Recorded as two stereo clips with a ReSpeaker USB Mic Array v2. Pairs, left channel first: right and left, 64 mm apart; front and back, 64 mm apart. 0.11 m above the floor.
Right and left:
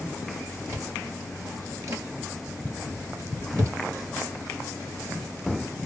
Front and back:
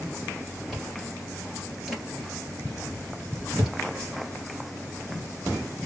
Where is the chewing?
95° left, 1.9 m.